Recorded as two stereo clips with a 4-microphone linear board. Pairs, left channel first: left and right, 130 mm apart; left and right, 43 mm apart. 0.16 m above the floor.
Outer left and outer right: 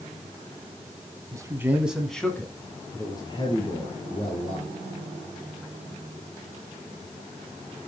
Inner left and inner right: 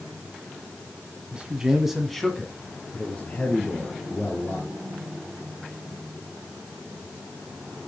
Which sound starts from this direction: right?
A man speaking, at 1.3 s.